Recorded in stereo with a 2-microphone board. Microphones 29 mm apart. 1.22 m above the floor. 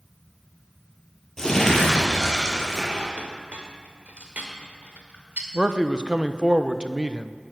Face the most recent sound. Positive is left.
turn(degrees=-30)  # may be behind; listen again after turning